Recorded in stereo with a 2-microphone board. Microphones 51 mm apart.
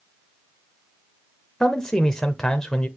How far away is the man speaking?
About 0.9 m.